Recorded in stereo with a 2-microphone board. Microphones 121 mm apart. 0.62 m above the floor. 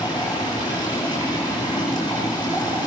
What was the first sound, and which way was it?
Running water, 35° left (ahead or behind).